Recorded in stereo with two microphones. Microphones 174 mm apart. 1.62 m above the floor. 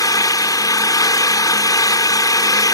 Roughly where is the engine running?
Left.